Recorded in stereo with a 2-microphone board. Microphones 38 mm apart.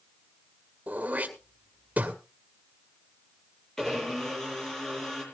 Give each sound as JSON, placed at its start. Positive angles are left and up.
{"t": 0.9, "sound": "throat clearing", "side_deg": -45, "distance_m": 1.9}
{"t": 3.8, "sound": "a blender", "side_deg": 15, "distance_m": 6.5}